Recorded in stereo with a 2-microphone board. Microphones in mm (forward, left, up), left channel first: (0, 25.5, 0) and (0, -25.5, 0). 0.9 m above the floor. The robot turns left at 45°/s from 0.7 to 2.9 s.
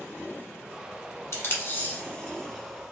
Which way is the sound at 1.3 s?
60° left (ahead or behind).